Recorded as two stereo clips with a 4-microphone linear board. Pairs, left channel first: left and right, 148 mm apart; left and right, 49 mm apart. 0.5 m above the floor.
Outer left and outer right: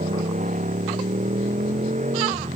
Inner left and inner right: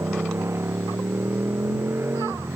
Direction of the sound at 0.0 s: 55° right (ahead or behind).